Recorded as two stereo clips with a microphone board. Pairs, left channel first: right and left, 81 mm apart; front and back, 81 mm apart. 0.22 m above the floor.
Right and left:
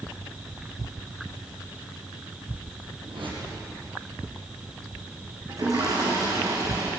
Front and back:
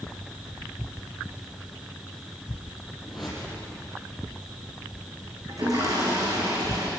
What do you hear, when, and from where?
3.0 s a whoosh: 95° left, 7.5 m
5.5 s a toilet flushing: 135° left, 7 m